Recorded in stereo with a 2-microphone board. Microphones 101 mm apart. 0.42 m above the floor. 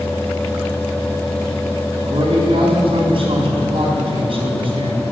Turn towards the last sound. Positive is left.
turn(degrees=-55)  # may be behind; listen again after turning